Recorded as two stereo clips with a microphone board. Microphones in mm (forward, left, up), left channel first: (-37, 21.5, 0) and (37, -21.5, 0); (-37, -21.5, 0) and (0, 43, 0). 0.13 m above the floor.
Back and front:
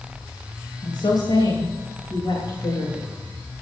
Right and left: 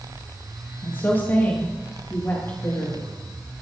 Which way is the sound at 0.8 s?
175° left.